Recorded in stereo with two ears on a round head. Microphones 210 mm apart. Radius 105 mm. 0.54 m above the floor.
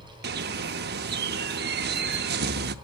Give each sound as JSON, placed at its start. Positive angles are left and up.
{"t": 0.2, "sound": "a bird", "side_deg": -45, "distance_m": 0.9}